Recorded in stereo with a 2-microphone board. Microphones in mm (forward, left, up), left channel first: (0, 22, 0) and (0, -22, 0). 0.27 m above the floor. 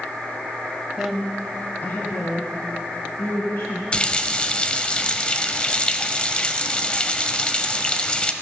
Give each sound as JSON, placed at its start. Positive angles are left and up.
{"t": 1.0, "sound": "a woman speaking", "side_deg": -10, "distance_m": 1.1}
{"t": 3.9, "sound": "a running tap", "side_deg": 25, "distance_m": 0.8}